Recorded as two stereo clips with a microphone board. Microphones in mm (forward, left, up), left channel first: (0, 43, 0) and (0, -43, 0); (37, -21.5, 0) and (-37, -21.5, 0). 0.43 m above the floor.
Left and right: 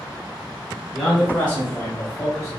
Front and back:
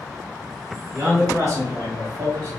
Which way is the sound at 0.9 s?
175° left.